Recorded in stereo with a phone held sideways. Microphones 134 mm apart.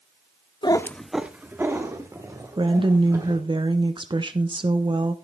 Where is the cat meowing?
35° left (ahead or behind), 0.6 m; by 3.4 s 30° right (ahead or behind), 4 m.